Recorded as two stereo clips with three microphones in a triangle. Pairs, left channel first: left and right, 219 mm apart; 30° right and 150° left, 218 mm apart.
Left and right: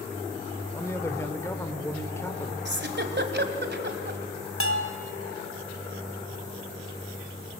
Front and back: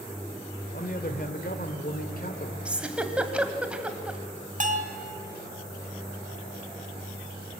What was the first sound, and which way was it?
A man speaking, 15° left.